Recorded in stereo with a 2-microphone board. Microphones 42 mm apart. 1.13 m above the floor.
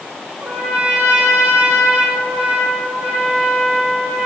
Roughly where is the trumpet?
Right.